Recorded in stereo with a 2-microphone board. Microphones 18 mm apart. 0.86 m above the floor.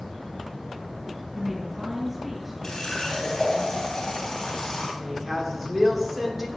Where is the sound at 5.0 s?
15° right (ahead or behind), 2.5 m.